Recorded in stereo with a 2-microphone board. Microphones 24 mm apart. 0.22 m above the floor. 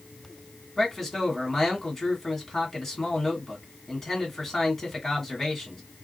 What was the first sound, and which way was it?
A man speaking, 10° left (ahead or behind).